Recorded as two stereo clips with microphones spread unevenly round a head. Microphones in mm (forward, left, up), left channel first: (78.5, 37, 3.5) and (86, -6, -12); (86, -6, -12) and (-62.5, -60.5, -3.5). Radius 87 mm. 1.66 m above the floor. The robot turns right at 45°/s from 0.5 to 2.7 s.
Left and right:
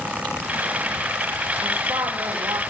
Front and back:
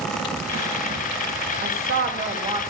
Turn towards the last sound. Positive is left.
turn(degrees=-95)